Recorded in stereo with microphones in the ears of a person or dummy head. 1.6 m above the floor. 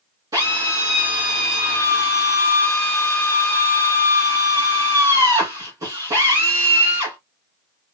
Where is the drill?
15° right (ahead or behind), 3 m.